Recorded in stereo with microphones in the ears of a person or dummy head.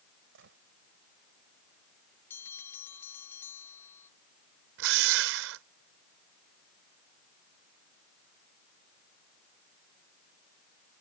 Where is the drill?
70° right (ahead or behind).